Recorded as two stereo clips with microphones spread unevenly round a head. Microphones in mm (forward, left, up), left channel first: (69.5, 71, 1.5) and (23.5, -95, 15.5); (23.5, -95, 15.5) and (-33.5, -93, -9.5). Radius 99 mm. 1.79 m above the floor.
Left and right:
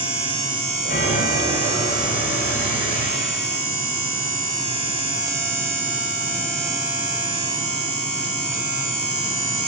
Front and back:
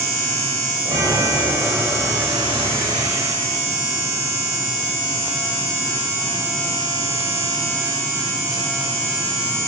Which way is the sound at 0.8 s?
130° left.